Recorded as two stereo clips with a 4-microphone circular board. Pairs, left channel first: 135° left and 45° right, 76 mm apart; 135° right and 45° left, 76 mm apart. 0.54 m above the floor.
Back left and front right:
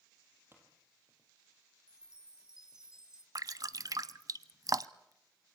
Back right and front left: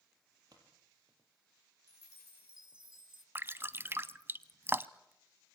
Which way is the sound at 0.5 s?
15° left.